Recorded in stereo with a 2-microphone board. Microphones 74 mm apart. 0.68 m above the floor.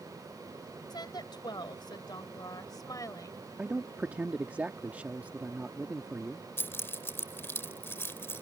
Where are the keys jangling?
30° left (ahead or behind).